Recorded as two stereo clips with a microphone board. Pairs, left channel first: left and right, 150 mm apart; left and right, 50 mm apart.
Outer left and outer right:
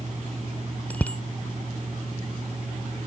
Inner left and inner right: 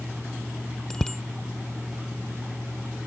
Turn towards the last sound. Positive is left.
turn(degrees=10)  # may be behind; listen again after turning